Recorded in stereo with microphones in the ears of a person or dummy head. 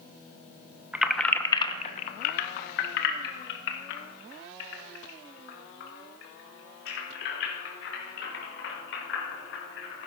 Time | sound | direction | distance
0.9 | keys jangling | 5° right (ahead or behind) | 0.6 m